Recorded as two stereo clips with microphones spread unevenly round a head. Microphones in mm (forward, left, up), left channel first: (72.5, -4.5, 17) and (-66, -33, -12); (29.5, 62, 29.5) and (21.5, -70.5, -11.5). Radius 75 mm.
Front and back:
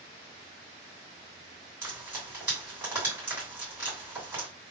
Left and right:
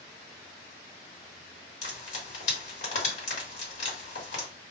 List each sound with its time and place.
1.8 s frying: 110° left, 2.5 m